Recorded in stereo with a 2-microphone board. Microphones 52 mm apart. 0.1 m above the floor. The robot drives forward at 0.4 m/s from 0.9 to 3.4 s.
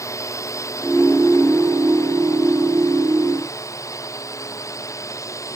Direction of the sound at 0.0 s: 75° left (ahead or behind).